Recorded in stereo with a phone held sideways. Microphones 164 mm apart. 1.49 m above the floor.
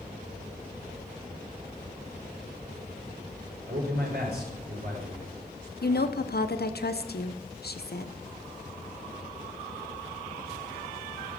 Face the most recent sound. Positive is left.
turn(degrees=75)  # may be behind; listen again after turning